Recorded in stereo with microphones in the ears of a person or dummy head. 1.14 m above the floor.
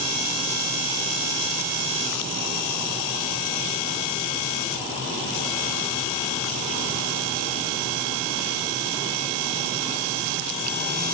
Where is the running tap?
I don't hear a running tap.